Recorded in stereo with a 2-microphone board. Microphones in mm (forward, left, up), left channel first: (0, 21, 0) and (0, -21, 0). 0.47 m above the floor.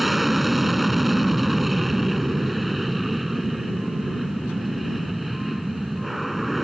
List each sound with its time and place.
0.0 s an aircraft: 5° right (ahead or behind)